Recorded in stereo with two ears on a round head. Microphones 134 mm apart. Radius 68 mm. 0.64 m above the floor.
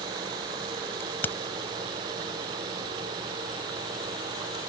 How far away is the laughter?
I don't hear laughter.